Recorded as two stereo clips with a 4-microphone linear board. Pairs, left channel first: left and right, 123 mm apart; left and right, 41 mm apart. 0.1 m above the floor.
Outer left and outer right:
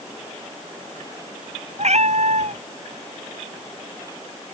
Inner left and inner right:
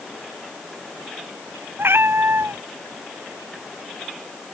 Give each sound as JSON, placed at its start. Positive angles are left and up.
{"t": 1.8, "sound": "a cat meowing", "side_deg": -65}